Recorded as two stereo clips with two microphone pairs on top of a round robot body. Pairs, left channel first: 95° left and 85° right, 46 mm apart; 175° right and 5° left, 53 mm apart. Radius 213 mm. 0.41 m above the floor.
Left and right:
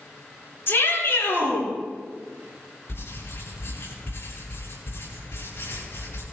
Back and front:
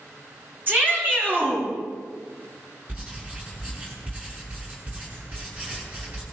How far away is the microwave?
No microwave in this recording.